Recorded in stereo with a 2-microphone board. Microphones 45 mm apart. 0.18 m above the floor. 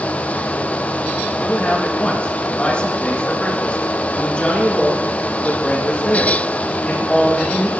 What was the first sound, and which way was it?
A man speaking, 25° left (ahead or behind).